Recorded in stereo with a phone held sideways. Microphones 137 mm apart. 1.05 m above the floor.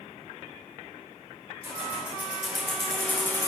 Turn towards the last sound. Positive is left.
turn(degrees=25)  # may be behind; listen again after turning